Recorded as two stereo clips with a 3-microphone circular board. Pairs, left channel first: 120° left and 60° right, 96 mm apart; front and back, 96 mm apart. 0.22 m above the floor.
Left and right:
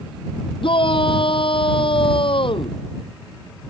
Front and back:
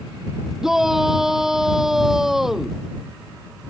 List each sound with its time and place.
0.6 s a shout: 95° left